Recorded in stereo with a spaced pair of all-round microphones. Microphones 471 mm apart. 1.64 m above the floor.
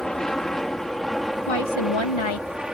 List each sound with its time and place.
0.0 s an aircraft: centre (ahead or behind)
1.5 s a woman speaking: 80° left